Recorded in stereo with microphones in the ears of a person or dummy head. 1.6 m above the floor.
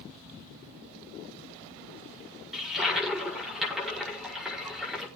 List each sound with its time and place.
2.5 s a toilet flushing: centre (ahead or behind), 5.5 m